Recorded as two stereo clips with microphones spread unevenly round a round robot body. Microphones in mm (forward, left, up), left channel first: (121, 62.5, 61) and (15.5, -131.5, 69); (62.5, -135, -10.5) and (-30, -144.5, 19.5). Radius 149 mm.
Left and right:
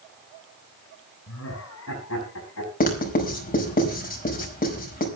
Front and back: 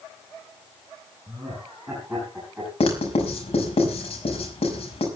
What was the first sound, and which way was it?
Laughter, 100° left.